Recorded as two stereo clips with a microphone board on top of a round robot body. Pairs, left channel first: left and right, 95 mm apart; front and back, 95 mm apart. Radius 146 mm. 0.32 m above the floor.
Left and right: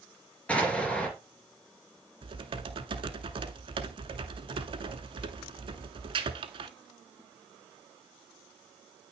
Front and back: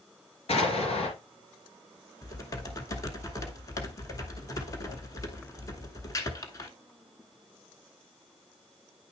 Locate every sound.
0.5 s an explosion: 15° left, 2.5 m
2.2 s typing on a keyboard: 55° right, 0.8 m